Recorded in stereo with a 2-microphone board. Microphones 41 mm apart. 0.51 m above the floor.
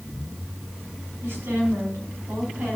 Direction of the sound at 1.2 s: 80° right.